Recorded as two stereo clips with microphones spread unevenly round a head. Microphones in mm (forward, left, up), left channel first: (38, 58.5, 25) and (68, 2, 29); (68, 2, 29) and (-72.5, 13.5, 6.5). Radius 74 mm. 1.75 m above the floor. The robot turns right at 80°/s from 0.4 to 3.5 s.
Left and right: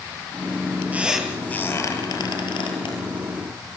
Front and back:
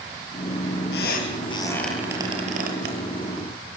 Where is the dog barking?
No dog barking in this recording.